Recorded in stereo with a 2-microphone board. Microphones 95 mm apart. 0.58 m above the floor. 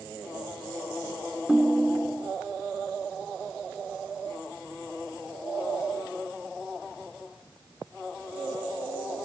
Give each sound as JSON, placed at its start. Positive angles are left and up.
{"t": 1.5, "sound": "a ringtone", "side_deg": -10}